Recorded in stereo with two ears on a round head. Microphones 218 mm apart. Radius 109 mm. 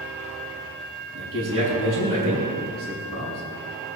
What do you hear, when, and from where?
1.1 s a man speaking: 55° right (ahead or behind), 6.5 m